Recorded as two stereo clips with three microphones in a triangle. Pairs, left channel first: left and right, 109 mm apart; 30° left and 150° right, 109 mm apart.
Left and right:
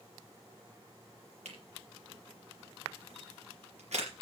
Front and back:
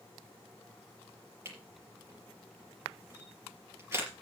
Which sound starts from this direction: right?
A camera shutter, at 1.4 s.